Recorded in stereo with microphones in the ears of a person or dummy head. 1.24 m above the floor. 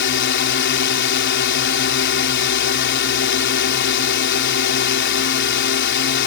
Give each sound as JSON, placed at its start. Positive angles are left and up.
{"t": 0.0, "sound": "a drone", "side_deg": 65}